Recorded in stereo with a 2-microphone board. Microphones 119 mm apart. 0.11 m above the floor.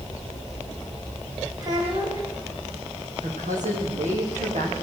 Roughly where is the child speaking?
Right.